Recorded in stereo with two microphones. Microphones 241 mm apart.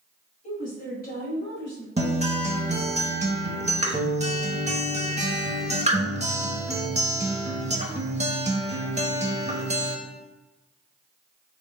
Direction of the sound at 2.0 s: 30° right (ahead or behind).